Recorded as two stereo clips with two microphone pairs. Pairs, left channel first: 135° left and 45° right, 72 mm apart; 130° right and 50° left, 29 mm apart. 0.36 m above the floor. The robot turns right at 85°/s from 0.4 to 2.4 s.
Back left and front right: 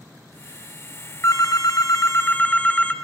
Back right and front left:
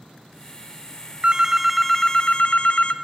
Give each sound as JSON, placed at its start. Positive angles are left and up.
{"t": 1.2, "sound": "a phone ringing", "azimuth_deg": 95, "distance_m": 0.7}